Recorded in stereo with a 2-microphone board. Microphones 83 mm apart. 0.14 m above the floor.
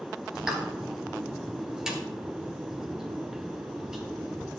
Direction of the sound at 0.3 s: 10° right (ahead or behind).